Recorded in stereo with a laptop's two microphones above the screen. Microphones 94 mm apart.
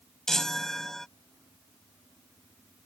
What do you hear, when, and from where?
0.3 s a chime: 5° left (ahead or behind)